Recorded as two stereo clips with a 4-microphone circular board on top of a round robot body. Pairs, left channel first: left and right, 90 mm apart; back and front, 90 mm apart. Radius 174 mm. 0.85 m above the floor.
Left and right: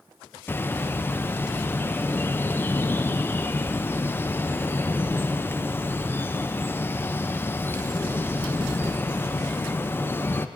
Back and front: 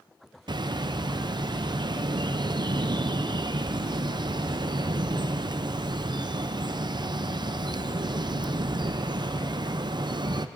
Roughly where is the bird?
Ahead left.